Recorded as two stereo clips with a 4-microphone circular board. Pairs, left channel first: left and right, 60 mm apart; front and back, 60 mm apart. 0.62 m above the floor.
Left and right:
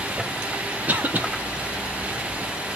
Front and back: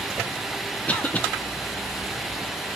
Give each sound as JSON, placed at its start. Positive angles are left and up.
{"t": 0.9, "sound": "a cough", "azimuth_deg": -50, "distance_m": 0.7}